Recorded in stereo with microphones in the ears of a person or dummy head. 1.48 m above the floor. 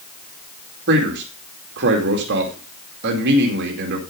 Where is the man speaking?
70° right (ahead or behind), 2.5 m.